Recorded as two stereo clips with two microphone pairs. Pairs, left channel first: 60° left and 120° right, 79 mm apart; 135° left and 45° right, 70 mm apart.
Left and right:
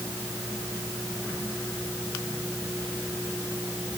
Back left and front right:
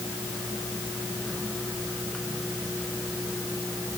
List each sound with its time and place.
Only background noise.